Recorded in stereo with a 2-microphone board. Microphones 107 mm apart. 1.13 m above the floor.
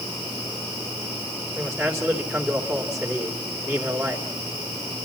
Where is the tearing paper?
No tearing paper in this recording.